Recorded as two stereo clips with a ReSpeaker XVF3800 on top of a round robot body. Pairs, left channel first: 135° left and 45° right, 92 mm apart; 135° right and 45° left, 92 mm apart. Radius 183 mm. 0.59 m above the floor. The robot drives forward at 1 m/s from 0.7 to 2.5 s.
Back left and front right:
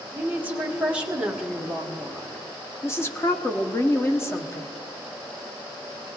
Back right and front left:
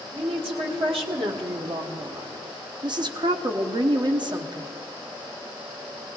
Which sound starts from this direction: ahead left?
A woman speaking, at 0.1 s.